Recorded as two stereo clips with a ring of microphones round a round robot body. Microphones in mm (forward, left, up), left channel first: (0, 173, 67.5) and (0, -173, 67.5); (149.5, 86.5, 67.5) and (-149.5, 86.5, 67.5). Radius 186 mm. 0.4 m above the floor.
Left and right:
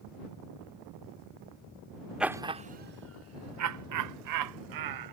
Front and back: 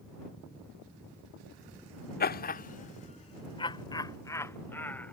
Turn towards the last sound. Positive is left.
turn(degrees=-85)